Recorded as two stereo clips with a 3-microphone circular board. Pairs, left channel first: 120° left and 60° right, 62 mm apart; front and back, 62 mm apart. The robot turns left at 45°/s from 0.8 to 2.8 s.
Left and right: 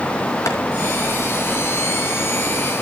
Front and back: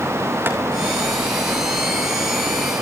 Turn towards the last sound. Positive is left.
turn(degrees=40)